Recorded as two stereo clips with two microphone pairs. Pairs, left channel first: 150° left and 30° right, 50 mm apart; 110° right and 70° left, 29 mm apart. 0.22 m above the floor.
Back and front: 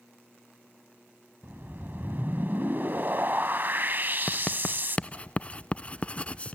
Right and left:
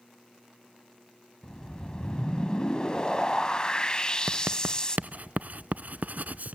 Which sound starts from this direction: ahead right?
A whoosh, at 1.4 s.